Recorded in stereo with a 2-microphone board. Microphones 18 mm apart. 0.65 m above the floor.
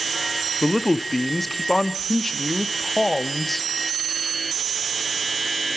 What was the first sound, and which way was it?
A man speaking, 10° left (ahead or behind).